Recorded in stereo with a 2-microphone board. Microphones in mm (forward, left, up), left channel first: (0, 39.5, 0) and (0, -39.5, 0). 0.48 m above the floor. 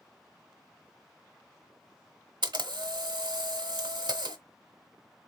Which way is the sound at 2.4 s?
80° right.